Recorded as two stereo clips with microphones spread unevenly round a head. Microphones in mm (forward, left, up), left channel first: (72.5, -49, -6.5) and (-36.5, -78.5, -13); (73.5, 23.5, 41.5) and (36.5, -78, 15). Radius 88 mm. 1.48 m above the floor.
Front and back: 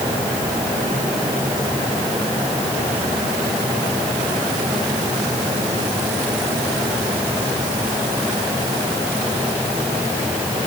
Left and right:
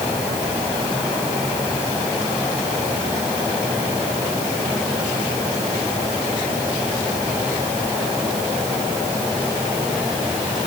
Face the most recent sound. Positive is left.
No sound to turn to.